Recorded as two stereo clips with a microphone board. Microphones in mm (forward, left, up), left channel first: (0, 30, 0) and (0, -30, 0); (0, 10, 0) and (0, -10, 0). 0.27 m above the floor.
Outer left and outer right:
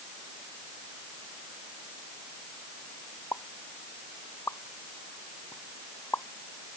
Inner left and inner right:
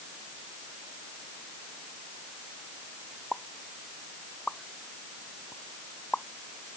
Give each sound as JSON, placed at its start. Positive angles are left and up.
{"t": 3.3, "sound": "a pop", "side_deg": 50}